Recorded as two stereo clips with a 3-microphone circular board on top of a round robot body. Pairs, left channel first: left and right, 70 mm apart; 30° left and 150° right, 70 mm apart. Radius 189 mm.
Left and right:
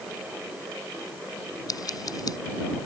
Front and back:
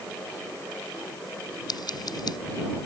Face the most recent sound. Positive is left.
turn(degrees=55)